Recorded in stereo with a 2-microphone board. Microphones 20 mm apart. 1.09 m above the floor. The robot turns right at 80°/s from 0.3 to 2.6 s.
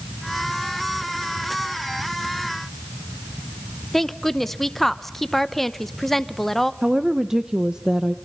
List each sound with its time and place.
3.9 s a woman speaking: 10° left (ahead or behind), 0.7 m
6.8 s a woman speaking: 35° right (ahead or behind), 0.8 m